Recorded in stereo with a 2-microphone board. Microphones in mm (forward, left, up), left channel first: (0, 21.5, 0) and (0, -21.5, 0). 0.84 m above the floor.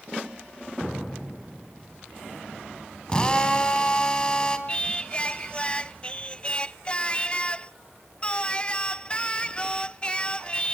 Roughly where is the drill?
Centre.